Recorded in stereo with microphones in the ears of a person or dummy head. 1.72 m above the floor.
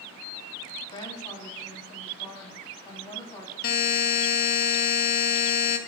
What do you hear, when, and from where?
0.9 s a woman speaking: 30° left (ahead or behind), 3 m
3.6 s a buzzer: 55° left (ahead or behind), 1.0 m